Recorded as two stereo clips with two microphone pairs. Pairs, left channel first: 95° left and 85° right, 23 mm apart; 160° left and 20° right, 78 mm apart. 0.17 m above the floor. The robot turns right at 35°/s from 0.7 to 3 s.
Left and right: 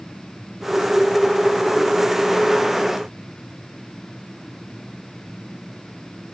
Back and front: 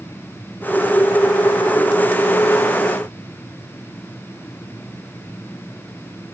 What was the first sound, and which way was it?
Only background noise.